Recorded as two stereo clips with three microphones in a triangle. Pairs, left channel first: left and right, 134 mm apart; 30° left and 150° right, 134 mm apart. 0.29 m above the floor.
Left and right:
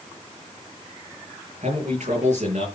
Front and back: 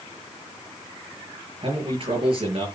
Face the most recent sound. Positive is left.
turn(degrees=-105)